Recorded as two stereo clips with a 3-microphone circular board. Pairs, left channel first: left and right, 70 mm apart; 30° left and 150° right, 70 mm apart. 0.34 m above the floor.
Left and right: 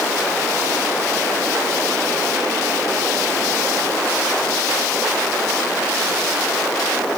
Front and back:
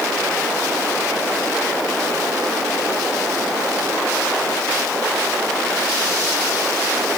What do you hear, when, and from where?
Only background noise.